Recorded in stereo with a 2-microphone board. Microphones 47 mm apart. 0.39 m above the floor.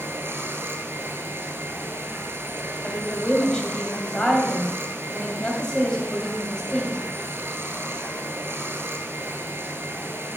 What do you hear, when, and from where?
0.0 s running water: 55° right (ahead or behind), 0.9 m
2.8 s a woman speaking: 20° left (ahead or behind), 2.5 m